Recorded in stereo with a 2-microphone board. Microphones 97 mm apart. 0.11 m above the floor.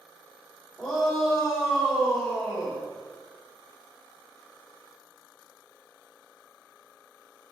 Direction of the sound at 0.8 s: 5° left (ahead or behind).